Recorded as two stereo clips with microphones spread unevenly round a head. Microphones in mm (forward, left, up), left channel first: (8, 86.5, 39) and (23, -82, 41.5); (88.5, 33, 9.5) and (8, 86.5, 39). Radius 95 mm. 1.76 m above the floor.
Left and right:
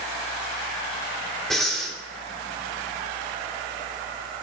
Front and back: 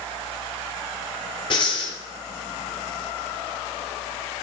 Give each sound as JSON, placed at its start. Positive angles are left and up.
{"t": 1.5, "sound": "breathing", "azimuth_deg": 10, "distance_m": 1.9}